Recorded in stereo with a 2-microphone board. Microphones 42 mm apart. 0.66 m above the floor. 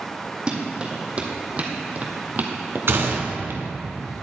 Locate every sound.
0.5 s running footsteps: 20° right (ahead or behind), 2 m; by 3.7 s 60° right (ahead or behind), 1.2 m
2.9 s a gunshot: 60° right (ahead or behind), 1.4 m